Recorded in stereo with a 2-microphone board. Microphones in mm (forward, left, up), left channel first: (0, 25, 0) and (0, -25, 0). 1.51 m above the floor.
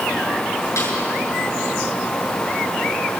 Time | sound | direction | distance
0.8 | a snare drum | 70° left (ahead or behind) | 7.5 m